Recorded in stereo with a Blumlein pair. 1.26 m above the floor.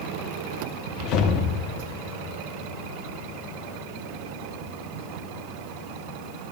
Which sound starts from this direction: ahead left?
A whoosh, at 1.0 s.